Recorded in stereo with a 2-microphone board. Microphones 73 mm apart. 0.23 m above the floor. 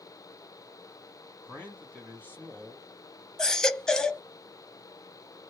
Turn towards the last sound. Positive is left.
turn(degrees=10)  # may be behind; listen again after turning